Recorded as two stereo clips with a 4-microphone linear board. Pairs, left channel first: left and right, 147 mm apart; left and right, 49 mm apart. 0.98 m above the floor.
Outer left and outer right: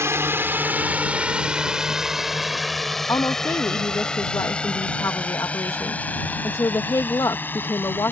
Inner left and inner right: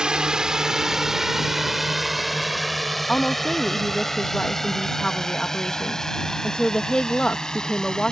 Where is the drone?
20° right (ahead or behind); by 8.1 s 15° left (ahead or behind).